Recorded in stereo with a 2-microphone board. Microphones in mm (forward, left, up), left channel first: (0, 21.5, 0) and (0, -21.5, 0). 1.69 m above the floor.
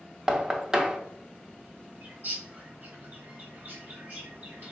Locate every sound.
0.3 s knocking: 15° right (ahead or behind), 0.5 m
2.0 s a bird: 40° right (ahead or behind), 1.3 m